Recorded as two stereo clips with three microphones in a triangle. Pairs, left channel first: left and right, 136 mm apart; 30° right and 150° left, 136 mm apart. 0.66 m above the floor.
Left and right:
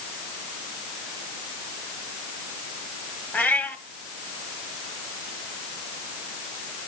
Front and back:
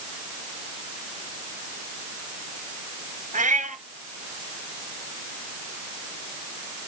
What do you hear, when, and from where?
3.3 s a cat meowing: 170° left, 1.8 m